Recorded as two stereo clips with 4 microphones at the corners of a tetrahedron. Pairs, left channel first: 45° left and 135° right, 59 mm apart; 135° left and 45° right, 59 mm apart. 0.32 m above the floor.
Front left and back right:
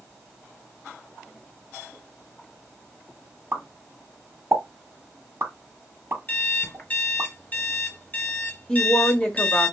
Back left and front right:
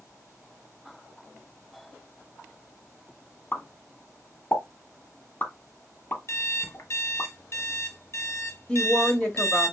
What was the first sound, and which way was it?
A pop, 175° right.